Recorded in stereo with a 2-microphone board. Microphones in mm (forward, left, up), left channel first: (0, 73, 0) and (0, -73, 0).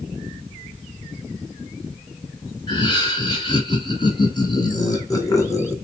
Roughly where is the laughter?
Left.